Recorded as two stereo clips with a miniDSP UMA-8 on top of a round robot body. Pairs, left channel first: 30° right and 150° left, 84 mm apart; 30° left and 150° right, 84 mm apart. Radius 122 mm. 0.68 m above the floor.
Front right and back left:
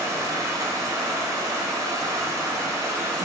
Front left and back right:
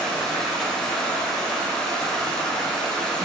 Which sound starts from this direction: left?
Running water, at 0.0 s.